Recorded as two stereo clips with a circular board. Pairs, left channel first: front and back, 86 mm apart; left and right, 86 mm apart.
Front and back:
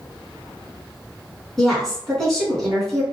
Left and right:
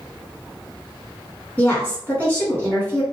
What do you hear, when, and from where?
1.6 s a woman speaking: 75° left, 1.4 m